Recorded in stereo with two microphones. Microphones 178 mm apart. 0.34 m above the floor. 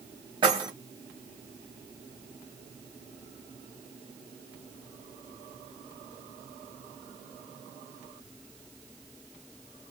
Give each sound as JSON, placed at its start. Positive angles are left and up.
{"t": 0.4, "sound": "keys jangling", "side_deg": -25, "distance_m": 1.1}